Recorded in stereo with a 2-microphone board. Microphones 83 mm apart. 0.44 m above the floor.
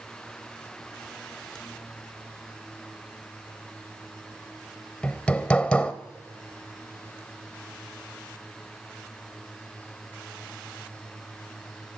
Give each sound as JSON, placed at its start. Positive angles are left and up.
{"t": 5.0, "sound": "hammering", "side_deg": 10, "distance_m": 0.8}